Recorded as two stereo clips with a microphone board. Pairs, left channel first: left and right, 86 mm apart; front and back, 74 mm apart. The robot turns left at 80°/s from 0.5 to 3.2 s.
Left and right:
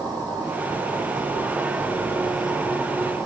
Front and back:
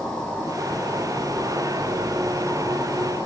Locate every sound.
0.0 s an insect: 80° right, 2.5 m; by 3.3 s 65° left, 2.5 m